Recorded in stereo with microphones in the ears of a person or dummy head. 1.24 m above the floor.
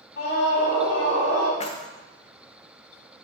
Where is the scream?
60° left (ahead or behind), 1.8 m; by 1.5 s 85° left, 3 m.